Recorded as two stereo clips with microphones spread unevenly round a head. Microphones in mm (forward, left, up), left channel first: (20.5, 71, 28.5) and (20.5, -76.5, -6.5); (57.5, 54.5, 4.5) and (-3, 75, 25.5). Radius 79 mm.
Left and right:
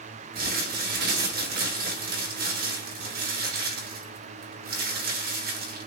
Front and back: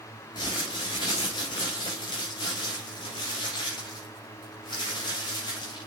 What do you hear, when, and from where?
0.3 s crumpling: 65° right, 3 m